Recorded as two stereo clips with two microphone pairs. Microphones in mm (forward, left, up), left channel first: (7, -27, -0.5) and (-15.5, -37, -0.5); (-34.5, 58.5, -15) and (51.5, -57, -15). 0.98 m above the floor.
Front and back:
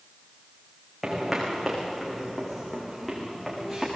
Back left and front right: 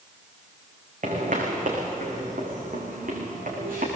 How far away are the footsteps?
About 5 m.